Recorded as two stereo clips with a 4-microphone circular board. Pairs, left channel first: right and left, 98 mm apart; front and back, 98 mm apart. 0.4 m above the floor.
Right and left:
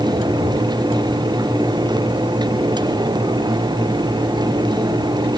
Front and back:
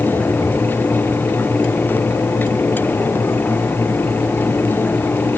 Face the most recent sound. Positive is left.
No sound to turn to.